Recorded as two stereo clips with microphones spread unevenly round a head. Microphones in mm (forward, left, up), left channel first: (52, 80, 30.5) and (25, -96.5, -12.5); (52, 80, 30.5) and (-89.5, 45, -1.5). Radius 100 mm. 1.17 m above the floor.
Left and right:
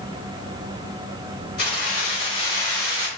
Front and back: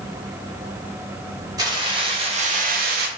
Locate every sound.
1.6 s keys jangling: 125° left, 1.0 m; by 3.1 s 175° right, 0.5 m